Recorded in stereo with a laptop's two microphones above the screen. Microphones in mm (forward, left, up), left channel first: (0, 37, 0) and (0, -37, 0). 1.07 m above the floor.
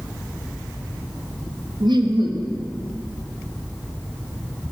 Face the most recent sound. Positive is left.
turn(degrees=-75)  # may be behind; listen again after turning